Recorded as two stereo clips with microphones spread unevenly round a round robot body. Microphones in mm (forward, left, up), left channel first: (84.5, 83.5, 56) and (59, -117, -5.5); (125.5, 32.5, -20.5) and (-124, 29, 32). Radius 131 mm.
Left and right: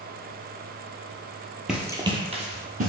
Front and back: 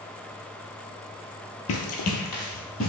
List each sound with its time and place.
1.7 s running footsteps: 10° left, 0.7 m; by 2.9 s 45° right, 1.3 m